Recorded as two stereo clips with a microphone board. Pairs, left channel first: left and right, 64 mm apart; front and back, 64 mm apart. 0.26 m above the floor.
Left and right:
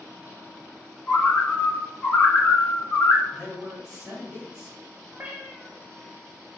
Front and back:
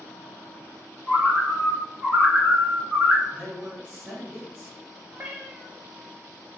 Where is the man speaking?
175° right, 1.1 m.